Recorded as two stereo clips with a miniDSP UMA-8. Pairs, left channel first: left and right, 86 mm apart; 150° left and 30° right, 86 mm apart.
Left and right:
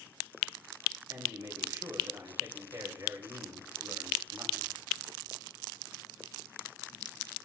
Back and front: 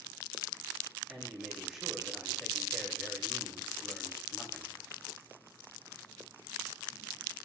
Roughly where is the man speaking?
Behind right.